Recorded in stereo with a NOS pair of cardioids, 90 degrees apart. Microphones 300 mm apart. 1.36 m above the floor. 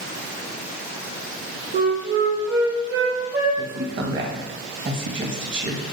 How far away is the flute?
About 1.1 m.